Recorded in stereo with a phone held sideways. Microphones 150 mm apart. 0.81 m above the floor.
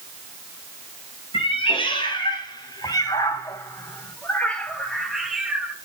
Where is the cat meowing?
40° left (ahead or behind), 3.5 m; by 5.7 s 10° right (ahead or behind), 2 m.